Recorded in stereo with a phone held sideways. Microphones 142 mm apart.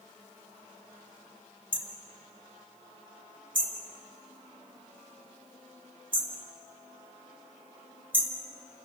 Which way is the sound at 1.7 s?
40° right (ahead or behind).